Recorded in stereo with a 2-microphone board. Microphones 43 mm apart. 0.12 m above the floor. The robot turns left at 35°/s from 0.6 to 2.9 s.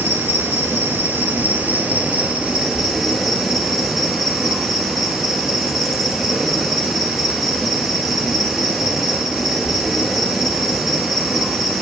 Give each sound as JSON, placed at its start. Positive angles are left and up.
{"t": 0.0, "sound": "an insect", "azimuth_deg": -90, "distance_m": 0.8}